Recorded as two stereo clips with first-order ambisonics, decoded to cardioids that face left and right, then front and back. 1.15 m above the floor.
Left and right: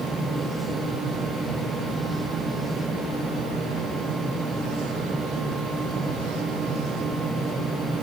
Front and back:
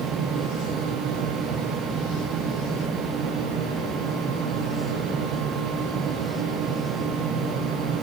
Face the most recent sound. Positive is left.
No sound to turn to.